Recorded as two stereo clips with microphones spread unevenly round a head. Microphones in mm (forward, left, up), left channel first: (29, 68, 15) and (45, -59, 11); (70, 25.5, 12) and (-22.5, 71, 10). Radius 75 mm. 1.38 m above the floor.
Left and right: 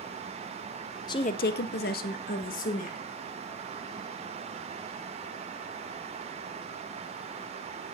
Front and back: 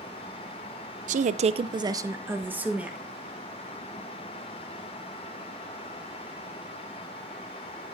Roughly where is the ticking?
I don't hear ticking.